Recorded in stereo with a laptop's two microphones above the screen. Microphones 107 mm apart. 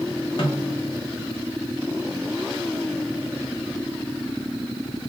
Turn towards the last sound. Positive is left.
turn(degrees=50)  # may be behind; listen again after turning